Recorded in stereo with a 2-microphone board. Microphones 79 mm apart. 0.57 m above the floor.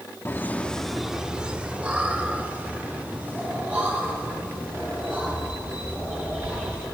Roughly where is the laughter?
Left.